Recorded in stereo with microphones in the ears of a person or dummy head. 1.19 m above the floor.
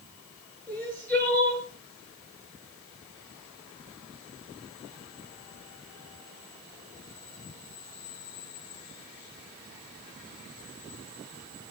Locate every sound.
0.7 s crying: 10° left (ahead or behind), 7.5 m